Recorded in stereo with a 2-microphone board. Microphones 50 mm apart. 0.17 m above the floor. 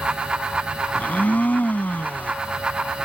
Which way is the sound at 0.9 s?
35° left (ahead or behind).